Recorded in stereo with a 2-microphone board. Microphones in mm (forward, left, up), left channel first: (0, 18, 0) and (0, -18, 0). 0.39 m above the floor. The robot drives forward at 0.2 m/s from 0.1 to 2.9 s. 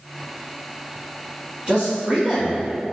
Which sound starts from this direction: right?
A man speaking, at 1.7 s.